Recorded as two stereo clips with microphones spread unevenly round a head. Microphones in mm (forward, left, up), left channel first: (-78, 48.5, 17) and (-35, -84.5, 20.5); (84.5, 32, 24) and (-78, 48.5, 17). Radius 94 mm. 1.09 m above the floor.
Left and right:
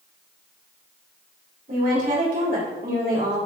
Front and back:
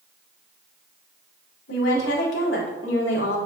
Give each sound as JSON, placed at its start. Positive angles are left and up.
{"t": 1.7, "sound": "a woman speaking", "azimuth_deg": -25, "distance_m": 4.0}